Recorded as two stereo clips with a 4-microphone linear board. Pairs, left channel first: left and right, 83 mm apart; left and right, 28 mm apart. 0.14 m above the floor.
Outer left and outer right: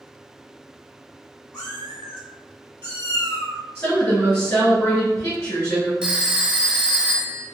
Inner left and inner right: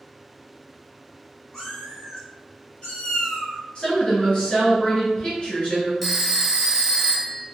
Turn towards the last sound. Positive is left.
turn(degrees=-15)  # may be behind; listen again after turning